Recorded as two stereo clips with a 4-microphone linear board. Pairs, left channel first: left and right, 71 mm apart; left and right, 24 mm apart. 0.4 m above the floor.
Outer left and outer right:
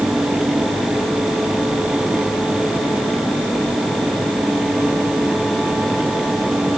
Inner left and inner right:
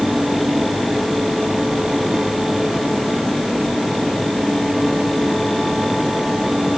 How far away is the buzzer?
I don't hear a buzzer.